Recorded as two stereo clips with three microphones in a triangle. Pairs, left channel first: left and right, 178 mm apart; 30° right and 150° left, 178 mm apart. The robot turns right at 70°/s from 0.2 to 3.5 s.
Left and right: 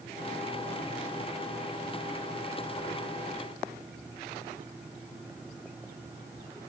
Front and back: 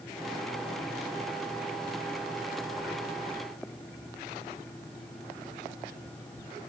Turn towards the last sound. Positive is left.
No sound to turn to.